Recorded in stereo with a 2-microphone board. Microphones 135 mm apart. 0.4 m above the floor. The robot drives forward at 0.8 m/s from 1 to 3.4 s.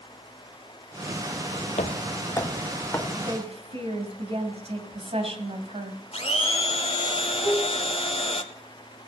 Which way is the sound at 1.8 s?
60° left (ahead or behind).